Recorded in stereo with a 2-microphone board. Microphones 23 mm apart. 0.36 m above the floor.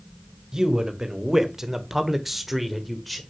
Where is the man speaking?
25° right (ahead or behind), 2.0 m; by 3.2 s 5° left (ahead or behind), 1.6 m.